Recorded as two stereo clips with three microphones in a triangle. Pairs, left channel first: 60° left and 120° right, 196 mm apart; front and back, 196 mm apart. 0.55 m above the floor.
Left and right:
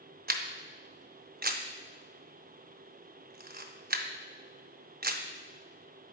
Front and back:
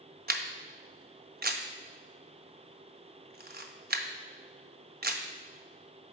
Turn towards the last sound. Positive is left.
turn(degrees=-150)